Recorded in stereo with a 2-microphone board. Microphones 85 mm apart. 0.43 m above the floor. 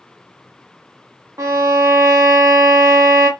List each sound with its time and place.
1.4 s a violin: 40° right (ahead or behind), 0.5 m